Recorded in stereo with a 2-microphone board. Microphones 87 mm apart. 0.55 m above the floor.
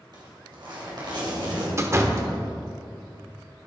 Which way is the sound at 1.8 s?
35° right (ahead or behind).